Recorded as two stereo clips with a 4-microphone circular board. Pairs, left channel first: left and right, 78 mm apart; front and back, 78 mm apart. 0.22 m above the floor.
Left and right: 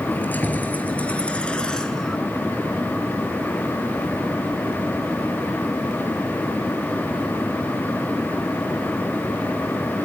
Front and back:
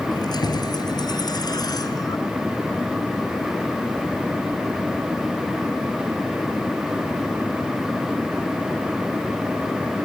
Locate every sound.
0.1 s keys jangling: 25° left, 3.5 m; by 2.2 s 5° left, 1.7 m